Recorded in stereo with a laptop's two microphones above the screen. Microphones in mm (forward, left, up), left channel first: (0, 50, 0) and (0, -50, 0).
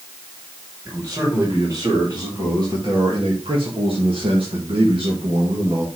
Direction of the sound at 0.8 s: 30° right (ahead or behind).